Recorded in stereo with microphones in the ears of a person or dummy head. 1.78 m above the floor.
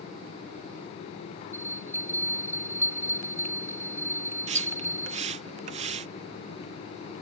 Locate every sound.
1.5 s a bell: 15° right (ahead or behind)
4.5 s a splash: 45° right (ahead or behind)